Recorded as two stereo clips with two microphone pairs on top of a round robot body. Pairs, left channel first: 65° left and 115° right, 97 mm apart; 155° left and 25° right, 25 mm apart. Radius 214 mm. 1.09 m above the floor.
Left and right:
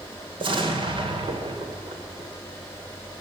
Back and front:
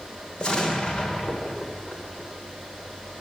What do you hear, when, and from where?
0.4 s an explosion: 150° right, 2.5 m